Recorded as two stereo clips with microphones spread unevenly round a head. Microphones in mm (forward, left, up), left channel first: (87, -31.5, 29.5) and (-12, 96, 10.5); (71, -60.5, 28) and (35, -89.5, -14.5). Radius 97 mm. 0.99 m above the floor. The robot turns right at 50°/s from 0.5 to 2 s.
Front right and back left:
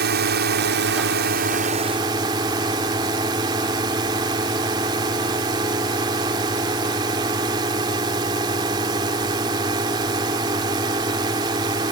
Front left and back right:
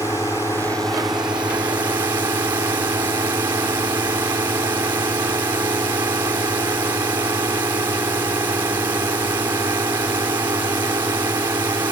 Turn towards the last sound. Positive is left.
turn(degrees=-165)